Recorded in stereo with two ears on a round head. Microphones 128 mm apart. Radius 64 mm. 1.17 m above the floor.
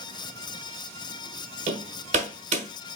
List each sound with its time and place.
1.7 s hammering: 50° right (ahead or behind), 1.3 m